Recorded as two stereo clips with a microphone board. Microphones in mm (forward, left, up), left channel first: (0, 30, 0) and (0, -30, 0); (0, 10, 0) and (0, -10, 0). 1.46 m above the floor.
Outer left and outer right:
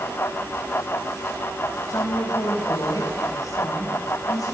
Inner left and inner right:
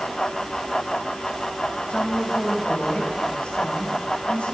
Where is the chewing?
No chewing in this recording.